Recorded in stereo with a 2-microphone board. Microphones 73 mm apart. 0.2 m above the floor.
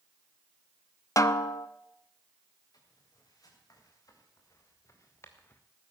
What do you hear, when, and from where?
1.2 s a snare drum: 45° left (ahead or behind), 0.6 m
2.7 s footsteps: 55° left (ahead or behind), 6 m; by 5.6 s 25° left (ahead or behind), 1.8 m